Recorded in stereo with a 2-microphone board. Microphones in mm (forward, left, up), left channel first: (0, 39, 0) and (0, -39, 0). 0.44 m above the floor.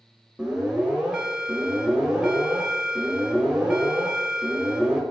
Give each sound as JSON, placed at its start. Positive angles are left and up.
{"t": 0.4, "sound": "an alarm", "side_deg": -10, "distance_m": 1.2}